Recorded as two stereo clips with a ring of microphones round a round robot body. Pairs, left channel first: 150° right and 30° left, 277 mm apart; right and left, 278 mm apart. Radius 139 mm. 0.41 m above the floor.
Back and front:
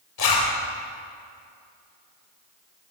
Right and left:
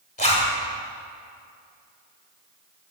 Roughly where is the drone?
No drone in this recording.